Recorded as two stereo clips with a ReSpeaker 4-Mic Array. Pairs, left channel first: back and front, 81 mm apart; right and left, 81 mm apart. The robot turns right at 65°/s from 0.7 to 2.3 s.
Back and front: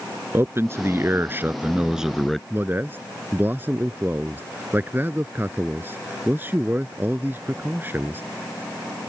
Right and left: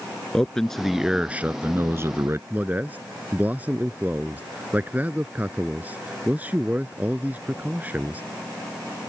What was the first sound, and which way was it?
A man speaking, 10° right.